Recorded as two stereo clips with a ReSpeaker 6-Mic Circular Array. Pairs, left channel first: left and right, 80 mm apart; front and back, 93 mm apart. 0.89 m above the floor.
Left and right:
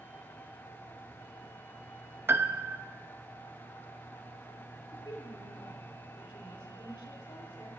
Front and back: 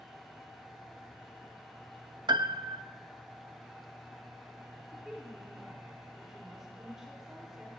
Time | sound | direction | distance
2.3 | a piano | 145° right | 0.5 m
4.9 | a woman speaking | 95° left | 3.5 m